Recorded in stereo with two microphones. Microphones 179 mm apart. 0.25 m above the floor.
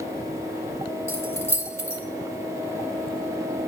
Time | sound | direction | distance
1.1 | keys jangling | 15° left (ahead or behind) | 0.8 m